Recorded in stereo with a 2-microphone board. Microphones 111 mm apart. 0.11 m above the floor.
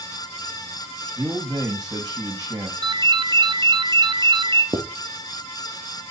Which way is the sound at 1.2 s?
35° right (ahead or behind).